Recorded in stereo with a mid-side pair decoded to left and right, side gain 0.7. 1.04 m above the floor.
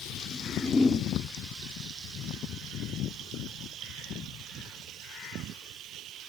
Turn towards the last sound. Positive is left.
turn(degrees=20)